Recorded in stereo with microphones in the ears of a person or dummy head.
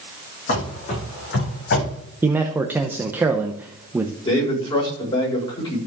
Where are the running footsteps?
50° left (ahead or behind), 5 m; by 2.0 s 65° left (ahead or behind), 5.5 m.